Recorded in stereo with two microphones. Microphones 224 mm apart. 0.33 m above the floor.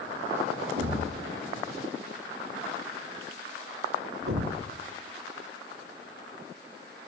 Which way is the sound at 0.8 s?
75° right (ahead or behind).